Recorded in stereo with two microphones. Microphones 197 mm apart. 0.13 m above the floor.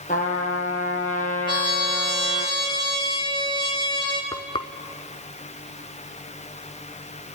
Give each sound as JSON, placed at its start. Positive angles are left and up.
{"t": 0.1, "sound": "a trumpet", "side_deg": 40, "distance_m": 2.0}
{"t": 1.5, "sound": "a trumpet", "side_deg": 25, "distance_m": 3.0}
{"t": 4.3, "sound": "frying", "side_deg": 25, "distance_m": 0.7}